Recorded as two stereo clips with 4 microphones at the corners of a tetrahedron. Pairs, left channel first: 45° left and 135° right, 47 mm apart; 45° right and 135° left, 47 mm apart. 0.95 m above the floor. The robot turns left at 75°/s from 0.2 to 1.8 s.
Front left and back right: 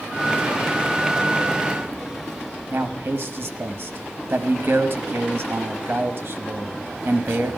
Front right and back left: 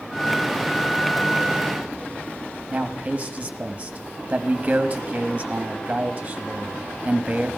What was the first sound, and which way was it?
A man speaking, 165° right.